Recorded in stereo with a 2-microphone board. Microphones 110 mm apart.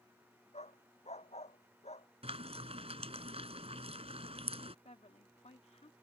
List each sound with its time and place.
0.5 s a dog barking: 80° left
2.2 s frying: 65° right (ahead or behind)
4.8 s a woman speaking: 75° left (ahead or behind)